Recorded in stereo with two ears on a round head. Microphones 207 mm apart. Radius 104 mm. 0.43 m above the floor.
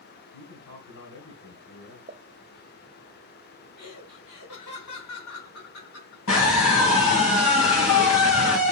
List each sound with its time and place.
0.3 s a man speaking: 65° left (ahead or behind), 3.5 m
2.1 s a pop: 25° right (ahead or behind), 0.5 m
3.8 s laughter: 70° left (ahead or behind), 5 m
6.3 s a scream: 65° left (ahead or behind), 3 m